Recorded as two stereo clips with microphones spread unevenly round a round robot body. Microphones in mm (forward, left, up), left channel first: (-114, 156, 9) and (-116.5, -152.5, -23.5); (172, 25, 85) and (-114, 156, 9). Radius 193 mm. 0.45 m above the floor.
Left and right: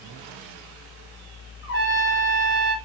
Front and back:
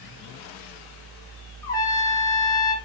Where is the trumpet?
70° left, 0.8 m.